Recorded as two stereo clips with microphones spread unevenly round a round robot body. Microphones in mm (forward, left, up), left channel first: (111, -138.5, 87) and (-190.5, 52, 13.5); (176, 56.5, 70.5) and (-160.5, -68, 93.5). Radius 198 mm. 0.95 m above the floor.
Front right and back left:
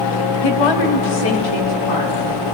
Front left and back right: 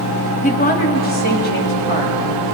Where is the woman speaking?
45° right, 1.4 m; by 2.5 s 40° right, 4.5 m.